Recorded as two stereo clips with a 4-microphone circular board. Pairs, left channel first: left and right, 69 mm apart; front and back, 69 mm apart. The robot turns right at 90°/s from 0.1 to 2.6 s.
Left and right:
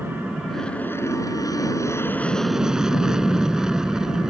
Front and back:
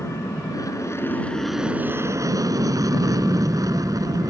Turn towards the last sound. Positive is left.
turn(degrees=-170)